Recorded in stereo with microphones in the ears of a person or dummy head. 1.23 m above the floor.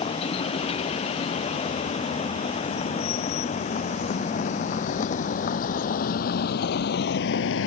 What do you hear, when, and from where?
0.0 s a vehicle: 30° left (ahead or behind); by 7.7 s 80° left